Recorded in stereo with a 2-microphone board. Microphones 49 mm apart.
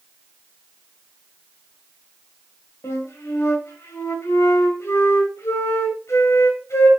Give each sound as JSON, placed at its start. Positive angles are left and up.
{"t": 2.8, "sound": "a flute", "side_deg": 70, "distance_m": 2.5}